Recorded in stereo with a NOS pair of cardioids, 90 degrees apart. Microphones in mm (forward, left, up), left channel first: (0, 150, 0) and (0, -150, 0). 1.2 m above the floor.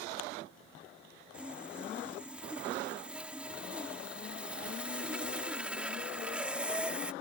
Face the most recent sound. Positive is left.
turn(degrees=-5)